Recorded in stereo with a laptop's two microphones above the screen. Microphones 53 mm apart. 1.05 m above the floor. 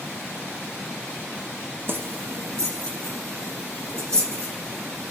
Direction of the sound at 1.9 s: 50° right (ahead or behind).